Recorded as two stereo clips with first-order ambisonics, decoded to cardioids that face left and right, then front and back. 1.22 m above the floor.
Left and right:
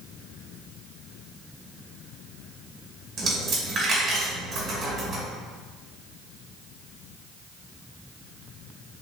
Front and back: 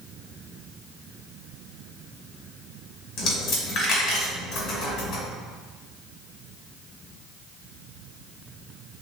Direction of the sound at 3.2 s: 30° right.